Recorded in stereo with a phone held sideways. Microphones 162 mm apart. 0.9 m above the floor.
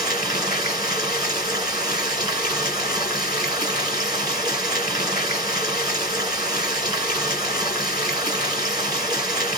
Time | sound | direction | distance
0.0 | running water | 25° right (ahead or behind) | 1.2 m